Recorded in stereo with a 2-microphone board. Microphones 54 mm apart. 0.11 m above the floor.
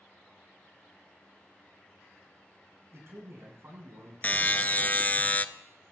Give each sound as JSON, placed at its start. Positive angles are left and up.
{"t": 2.9, "sound": "a man speaking", "side_deg": -55, "distance_m": 8.5}
{"t": 4.2, "sound": "a buzzer", "side_deg": 35, "distance_m": 0.6}